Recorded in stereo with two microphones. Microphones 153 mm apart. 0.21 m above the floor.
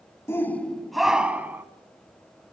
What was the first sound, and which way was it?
A shout, 15° left (ahead or behind).